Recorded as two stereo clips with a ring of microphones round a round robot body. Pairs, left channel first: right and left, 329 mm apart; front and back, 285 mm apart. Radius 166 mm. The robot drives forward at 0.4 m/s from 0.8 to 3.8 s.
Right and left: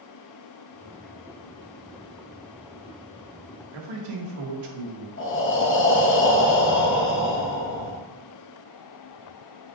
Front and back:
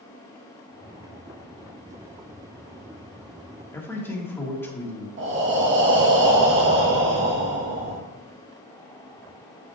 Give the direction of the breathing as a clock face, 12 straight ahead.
5 o'clock.